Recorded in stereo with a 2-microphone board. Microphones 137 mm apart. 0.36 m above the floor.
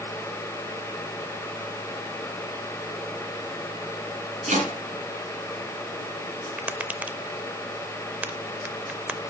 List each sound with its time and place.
4.5 s chopping: 65° right (ahead or behind), 3.5 m
6.6 s tapping: 10° right (ahead or behind), 0.5 m